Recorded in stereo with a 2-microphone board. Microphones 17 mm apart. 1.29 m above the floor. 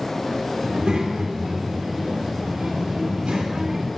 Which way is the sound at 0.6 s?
85° right.